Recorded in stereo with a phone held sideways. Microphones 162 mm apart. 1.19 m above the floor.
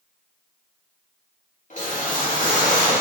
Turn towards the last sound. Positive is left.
turn(degrees=55)  # may be behind; listen again after turning